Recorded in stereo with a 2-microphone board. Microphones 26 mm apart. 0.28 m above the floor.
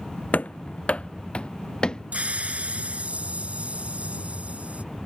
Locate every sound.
0.3 s running footsteps: 70° left (ahead or behind); by 2.0 s 30° left (ahead or behind)
2.1 s a hiss: 60° right (ahead or behind)